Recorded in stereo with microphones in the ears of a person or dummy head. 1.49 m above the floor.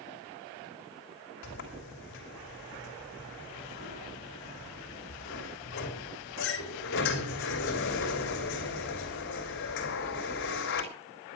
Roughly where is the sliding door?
Left.